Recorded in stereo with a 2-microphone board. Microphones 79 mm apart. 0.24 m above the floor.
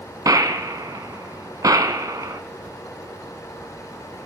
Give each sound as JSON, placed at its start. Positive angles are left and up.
{"t": 0.2, "sound": "a gunshot", "side_deg": -50, "distance_m": 0.6}